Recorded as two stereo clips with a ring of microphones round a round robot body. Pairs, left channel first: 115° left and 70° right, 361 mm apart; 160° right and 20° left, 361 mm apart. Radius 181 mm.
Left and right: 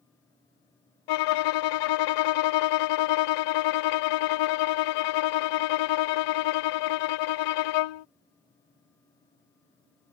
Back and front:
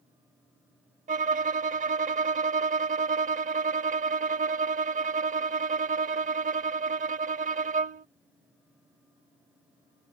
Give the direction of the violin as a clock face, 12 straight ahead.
9 o'clock.